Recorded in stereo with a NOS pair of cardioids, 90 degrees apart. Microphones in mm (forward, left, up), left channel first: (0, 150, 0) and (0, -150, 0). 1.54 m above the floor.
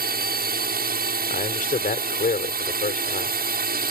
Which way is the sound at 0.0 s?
30° right.